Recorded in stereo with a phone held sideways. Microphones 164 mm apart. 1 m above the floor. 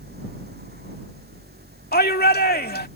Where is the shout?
70° left (ahead or behind).